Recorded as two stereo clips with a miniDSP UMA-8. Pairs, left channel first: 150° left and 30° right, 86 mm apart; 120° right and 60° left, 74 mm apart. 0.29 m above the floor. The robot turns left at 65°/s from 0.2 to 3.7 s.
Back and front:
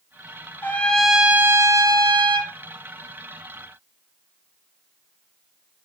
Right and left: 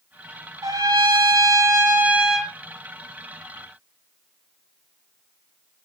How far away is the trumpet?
About 1.1 m.